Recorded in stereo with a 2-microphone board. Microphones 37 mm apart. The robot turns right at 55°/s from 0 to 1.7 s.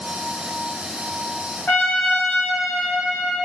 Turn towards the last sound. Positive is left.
turn(degrees=55)  # may be behind; listen again after turning